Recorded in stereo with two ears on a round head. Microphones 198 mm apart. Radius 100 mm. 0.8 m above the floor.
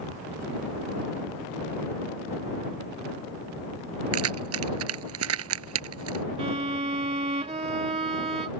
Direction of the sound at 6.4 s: 30° right (ahead or behind).